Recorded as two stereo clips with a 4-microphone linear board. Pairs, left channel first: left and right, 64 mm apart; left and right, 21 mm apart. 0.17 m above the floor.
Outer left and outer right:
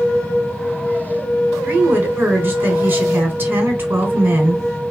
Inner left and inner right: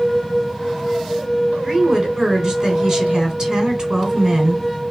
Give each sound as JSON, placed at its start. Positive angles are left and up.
{"t": 1.6, "sound": "a woman speaking", "side_deg": -35, "distance_m": 1.3}